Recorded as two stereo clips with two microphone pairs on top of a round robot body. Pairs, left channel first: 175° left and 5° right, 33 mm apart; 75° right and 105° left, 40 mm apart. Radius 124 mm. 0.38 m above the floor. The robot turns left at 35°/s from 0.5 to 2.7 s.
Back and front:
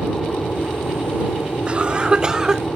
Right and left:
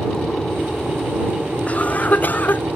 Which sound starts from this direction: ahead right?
A cough, at 1.7 s.